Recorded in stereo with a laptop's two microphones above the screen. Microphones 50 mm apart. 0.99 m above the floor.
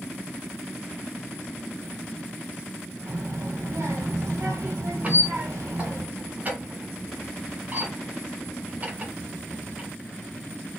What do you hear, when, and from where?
3.1 s a child speaking: 80° right, 1.2 m
5.0 s a squeak: 30° right (ahead or behind), 0.8 m